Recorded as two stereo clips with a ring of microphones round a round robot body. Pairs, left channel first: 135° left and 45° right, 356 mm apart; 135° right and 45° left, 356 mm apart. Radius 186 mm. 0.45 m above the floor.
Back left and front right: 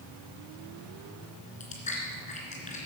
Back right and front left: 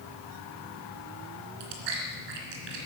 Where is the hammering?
No hammering in this recording.